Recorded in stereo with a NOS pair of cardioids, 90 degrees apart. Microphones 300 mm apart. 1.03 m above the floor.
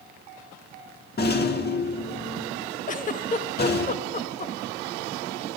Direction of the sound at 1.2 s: 35° left.